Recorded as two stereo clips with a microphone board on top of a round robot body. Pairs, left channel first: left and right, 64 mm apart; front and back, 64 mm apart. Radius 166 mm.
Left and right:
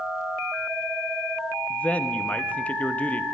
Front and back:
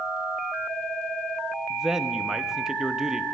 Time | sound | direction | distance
1.7 | a man speaking | 110° left | 1.2 m